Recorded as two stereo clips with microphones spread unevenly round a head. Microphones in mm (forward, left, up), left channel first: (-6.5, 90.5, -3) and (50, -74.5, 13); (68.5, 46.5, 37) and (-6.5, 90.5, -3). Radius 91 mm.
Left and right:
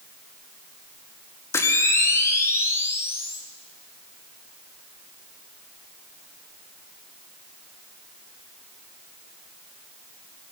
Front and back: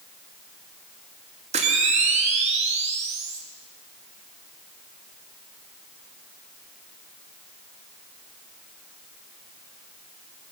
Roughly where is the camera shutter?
Behind.